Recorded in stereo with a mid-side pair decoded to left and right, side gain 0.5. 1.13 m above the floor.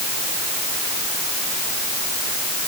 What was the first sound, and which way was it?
Only background noise.